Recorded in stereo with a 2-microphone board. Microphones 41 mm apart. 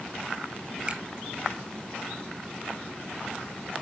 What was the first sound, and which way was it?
A finger snap, 30° right (ahead or behind).